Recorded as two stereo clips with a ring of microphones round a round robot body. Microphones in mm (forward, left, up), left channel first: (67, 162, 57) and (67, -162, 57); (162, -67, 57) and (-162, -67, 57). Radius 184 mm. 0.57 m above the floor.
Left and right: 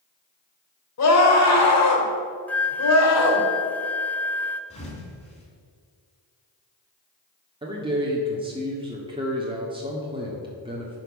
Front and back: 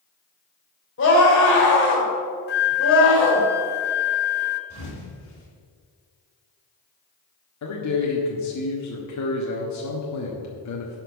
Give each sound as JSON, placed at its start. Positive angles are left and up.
{"t": 1.0, "sound": "a scream", "azimuth_deg": 55, "distance_m": 3.0}
{"t": 2.5, "sound": "a flute", "azimuth_deg": 10, "distance_m": 0.7}
{"t": 4.7, "sound": "a thud", "azimuth_deg": 20, "distance_m": 3.0}
{"t": 7.6, "sound": "a man speaking", "azimuth_deg": -20, "distance_m": 1.5}